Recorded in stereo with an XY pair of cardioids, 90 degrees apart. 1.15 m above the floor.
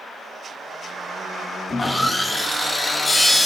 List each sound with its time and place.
1.7 s sawing: 20° left, 1.1 m